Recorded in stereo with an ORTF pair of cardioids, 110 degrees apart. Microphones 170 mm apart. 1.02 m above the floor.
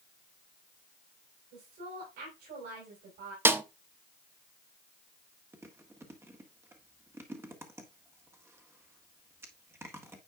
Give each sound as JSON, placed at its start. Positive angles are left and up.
{"t": 1.5, "sound": "a woman speaking", "azimuth_deg": -70, "distance_m": 5.0}
{"t": 3.5, "sound": "a snare drum", "azimuth_deg": -15, "distance_m": 0.7}
{"t": 5.5, "sound": "chewing", "azimuth_deg": -15, "distance_m": 1.5}